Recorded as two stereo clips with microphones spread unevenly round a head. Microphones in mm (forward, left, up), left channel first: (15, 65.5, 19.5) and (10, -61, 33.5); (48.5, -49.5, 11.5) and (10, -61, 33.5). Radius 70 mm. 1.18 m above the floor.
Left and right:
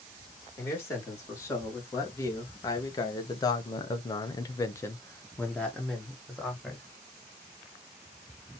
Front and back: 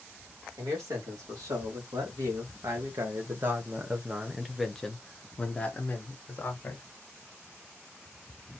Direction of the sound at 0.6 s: 155° left.